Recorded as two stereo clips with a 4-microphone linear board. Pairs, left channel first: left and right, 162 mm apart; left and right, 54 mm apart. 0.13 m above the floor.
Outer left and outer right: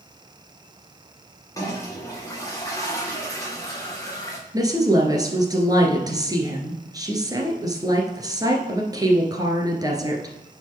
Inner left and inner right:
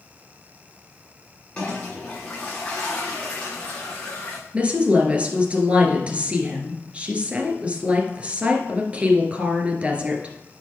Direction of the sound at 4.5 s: 25° right (ahead or behind).